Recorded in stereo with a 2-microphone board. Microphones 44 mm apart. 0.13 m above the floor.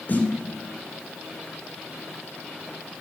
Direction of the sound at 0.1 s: 40° left (ahead or behind).